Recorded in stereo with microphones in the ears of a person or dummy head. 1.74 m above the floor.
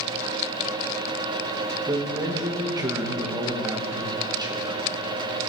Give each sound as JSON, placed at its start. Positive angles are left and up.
{"t": 1.9, "sound": "a man speaking", "side_deg": -20, "distance_m": 1.0}